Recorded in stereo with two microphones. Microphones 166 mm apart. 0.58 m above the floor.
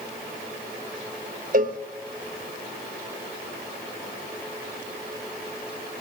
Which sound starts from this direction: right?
A cowbell, at 1.5 s.